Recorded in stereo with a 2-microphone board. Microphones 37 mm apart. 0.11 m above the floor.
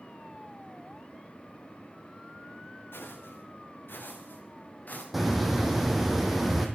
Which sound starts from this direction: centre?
A hiss, at 5.1 s.